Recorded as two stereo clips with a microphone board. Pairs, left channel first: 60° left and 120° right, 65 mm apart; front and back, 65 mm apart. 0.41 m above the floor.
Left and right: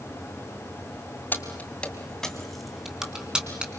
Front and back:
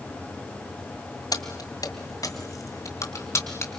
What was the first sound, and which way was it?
Keys jangling, straight ahead.